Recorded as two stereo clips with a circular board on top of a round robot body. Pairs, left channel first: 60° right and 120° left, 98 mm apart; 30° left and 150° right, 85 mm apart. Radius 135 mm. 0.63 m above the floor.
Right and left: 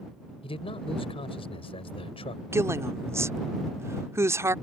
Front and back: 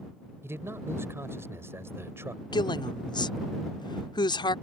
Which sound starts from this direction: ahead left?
A woman speaking, at 2.5 s.